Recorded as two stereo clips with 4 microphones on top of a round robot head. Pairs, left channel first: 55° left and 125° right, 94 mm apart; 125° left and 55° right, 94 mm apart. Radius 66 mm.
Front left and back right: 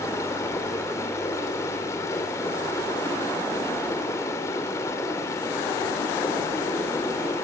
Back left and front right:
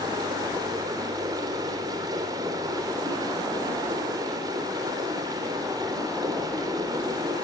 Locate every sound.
0.0 s running water: 5° right, 3.5 m